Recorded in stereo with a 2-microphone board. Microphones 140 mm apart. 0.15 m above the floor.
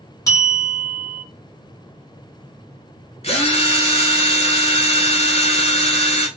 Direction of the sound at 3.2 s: 50° left (ahead or behind).